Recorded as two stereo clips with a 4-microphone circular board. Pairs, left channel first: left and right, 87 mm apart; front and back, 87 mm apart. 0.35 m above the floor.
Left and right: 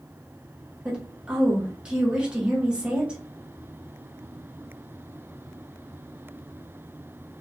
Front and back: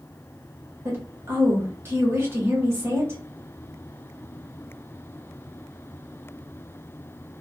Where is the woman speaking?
160° right, 1.3 m.